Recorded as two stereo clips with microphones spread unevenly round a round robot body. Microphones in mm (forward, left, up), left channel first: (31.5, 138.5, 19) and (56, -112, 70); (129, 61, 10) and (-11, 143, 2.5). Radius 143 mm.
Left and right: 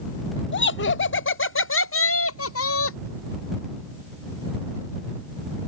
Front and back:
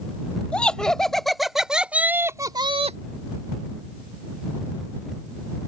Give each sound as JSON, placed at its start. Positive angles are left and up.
{"t": 0.5, "sound": "laughter", "azimuth_deg": 55}